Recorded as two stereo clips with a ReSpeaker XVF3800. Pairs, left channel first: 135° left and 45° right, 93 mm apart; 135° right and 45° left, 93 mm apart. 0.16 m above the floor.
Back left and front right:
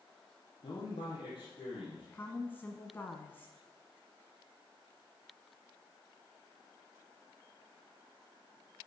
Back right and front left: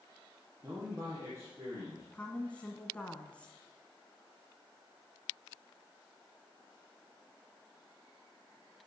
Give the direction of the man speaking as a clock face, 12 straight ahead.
8 o'clock.